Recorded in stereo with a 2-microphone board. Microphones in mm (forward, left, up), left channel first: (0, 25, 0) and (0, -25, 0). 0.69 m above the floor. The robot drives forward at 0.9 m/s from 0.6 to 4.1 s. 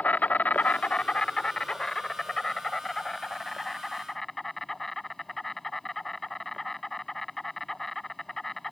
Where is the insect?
35° left (ahead or behind); by 8.7 s 5° left (ahead or behind).